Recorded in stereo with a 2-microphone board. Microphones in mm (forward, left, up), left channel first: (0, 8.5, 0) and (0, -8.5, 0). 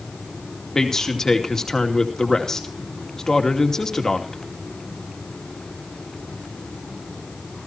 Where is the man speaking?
30° left (ahead or behind), 2.5 m.